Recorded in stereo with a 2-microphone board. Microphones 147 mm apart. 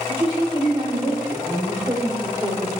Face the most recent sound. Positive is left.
turn(degrees=-15)  # may be behind; listen again after turning